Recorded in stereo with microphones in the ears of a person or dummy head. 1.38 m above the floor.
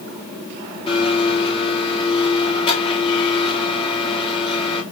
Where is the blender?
25° left (ahead or behind), 2 m.